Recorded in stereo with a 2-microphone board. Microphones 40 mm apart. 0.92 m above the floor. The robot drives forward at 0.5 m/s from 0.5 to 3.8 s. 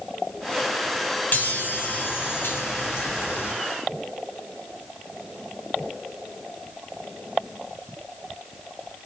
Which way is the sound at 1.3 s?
45° left (ahead or behind).